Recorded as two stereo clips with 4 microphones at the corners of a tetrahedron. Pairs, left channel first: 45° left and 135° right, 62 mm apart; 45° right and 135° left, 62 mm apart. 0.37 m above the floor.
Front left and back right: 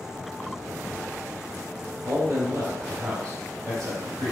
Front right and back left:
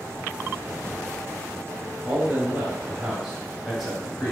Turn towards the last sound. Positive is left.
turn(degrees=-125)